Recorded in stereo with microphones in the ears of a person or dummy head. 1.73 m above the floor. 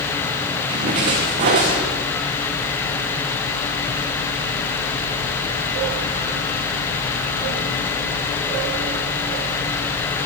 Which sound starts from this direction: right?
A splash, at 0.7 s.